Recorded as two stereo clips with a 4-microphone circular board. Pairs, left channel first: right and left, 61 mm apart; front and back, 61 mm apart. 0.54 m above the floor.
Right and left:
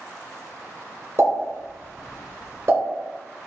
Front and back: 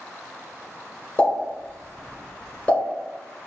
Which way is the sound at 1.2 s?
70° left.